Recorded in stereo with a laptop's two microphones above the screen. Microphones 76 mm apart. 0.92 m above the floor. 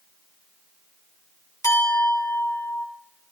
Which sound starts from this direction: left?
A clink, at 1.6 s.